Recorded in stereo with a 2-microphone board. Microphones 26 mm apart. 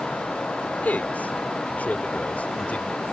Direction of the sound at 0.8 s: 75° left (ahead or behind).